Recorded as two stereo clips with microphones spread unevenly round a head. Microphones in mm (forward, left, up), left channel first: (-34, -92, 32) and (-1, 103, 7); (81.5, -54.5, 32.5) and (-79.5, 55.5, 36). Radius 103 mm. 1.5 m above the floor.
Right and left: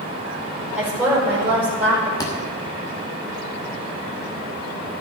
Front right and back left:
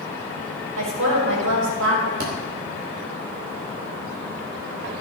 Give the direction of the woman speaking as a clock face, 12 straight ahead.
7 o'clock.